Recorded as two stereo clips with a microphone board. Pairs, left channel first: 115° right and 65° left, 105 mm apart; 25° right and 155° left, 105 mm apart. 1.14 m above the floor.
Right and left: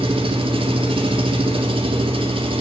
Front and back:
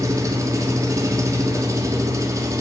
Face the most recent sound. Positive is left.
turn(degrees=100)